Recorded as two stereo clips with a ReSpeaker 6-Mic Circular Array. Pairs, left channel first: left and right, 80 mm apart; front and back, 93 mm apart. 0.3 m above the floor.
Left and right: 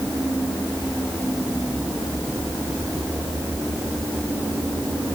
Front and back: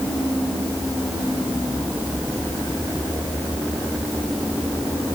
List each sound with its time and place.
Only background noise.